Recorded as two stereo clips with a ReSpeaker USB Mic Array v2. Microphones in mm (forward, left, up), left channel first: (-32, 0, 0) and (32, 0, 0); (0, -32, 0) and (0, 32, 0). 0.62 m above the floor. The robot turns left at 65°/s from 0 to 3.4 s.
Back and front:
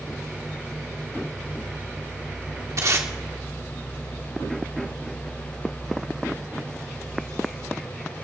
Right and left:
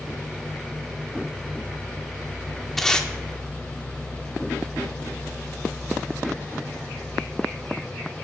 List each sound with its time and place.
2.8 s tape being pulled: 5° right, 1.9 m; by 3.1 s 25° right, 1.9 m